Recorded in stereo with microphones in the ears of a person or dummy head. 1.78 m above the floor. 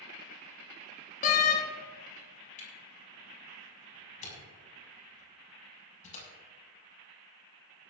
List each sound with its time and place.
1.2 s a door slam: 40° left (ahead or behind), 1.3 m
2.6 s a camera shutter: 40° left (ahead or behind), 6 m